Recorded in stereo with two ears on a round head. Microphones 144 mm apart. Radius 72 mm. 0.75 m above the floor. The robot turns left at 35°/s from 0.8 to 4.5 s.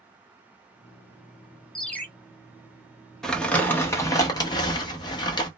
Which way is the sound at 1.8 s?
Centre (ahead or behind).